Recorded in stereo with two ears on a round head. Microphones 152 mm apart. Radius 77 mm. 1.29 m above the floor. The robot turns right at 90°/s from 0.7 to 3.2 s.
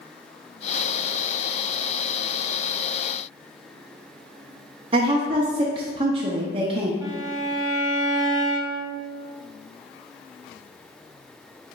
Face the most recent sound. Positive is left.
turn(degrees=-20)  # may be behind; listen again after turning